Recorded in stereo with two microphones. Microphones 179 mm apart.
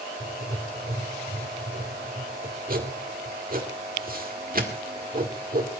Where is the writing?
55° right (ahead or behind), 2 m.